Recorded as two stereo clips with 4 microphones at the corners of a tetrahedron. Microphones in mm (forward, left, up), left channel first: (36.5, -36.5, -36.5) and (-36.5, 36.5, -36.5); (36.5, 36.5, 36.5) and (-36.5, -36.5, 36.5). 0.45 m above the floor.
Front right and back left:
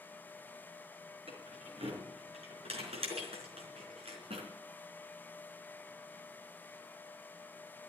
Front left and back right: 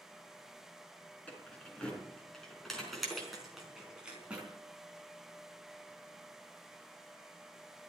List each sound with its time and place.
1.3 s keys jangling: 120° left, 5 m; by 4.5 s 145° left, 4 m